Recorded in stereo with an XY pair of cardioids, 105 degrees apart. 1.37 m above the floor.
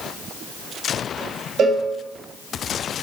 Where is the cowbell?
60° right, 2 m.